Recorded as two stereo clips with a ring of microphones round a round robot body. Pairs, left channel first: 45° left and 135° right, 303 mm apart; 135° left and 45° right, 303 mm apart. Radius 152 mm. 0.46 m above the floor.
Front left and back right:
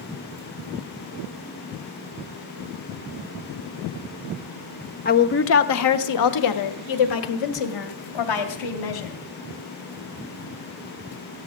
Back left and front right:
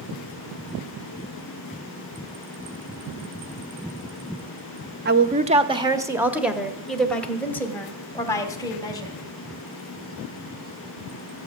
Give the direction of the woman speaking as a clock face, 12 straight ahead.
12 o'clock.